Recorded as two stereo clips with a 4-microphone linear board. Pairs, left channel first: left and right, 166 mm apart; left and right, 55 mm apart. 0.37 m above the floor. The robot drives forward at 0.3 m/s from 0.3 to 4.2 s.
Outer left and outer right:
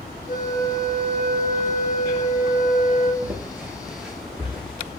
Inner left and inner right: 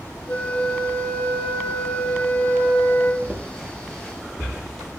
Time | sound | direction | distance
0.3 | a flute | 55° left (ahead or behind) | 2 m
3.2 | footsteps | 5° right (ahead or behind) | 2.5 m